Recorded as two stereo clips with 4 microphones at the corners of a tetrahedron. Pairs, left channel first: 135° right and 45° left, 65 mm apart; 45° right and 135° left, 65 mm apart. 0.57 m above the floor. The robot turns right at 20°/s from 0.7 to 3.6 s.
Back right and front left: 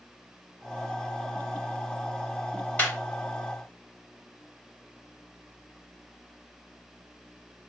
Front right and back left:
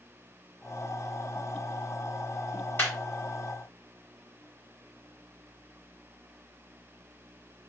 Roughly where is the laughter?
Right.